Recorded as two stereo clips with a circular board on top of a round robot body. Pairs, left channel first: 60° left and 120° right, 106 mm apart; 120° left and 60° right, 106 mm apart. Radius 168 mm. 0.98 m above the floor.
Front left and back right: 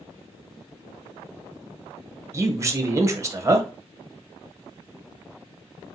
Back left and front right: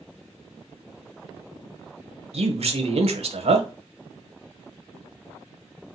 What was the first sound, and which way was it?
A man speaking, 60° right.